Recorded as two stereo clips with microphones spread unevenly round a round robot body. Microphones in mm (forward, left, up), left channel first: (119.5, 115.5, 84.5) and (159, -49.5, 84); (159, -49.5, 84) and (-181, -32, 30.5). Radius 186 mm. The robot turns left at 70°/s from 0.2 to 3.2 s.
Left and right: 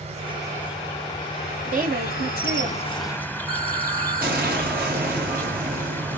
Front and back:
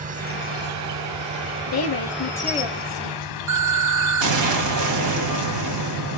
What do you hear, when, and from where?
0.0 s an insect: 125° right, 1.0 m; by 6.2 s 25° left, 1.0 m
1.7 s a woman speaking: 40° right, 1.9 m; by 3.2 s 150° right, 1.9 m
3.5 s an explosion: 160° right, 1.6 m